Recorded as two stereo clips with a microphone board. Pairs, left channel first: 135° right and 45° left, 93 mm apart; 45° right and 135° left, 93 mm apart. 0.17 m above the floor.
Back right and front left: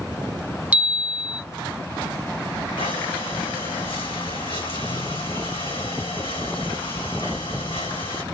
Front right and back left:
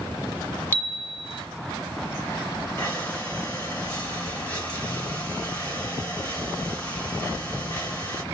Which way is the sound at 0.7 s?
10° right.